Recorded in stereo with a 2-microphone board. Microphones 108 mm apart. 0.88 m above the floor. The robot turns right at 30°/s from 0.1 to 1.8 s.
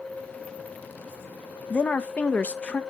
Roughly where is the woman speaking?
Centre.